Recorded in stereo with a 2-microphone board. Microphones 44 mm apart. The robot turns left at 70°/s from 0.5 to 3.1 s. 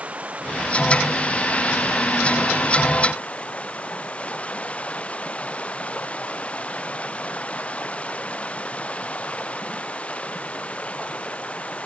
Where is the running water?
150° right; by 11.8 s 25° left.